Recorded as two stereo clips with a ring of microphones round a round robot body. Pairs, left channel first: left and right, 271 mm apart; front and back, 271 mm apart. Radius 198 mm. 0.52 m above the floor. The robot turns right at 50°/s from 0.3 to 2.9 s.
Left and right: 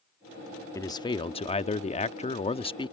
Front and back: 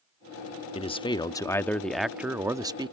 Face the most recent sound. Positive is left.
turn(degrees=135)